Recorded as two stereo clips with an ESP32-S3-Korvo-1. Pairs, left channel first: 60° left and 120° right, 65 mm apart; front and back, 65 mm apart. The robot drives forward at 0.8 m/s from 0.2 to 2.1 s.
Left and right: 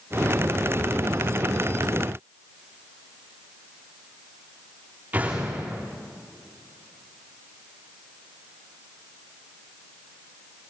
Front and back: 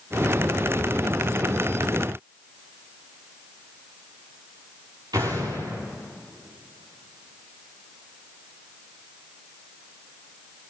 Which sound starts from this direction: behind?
An explosion, at 5.1 s.